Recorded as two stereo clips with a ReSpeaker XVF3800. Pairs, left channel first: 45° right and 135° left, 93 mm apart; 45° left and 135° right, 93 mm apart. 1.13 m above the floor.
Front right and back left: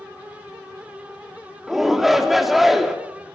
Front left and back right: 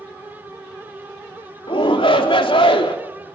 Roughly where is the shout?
Ahead left.